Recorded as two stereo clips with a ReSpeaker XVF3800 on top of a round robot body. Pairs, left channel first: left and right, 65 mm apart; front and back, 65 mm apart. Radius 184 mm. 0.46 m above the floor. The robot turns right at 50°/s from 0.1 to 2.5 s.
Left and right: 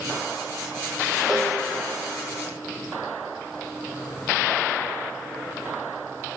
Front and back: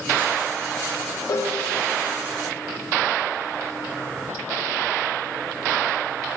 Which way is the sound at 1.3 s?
10° right.